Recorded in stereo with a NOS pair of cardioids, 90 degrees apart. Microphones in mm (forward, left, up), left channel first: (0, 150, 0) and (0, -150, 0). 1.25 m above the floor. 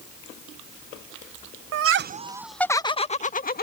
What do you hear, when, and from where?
1.7 s laughter: 60° right; by 3.6 s 30° left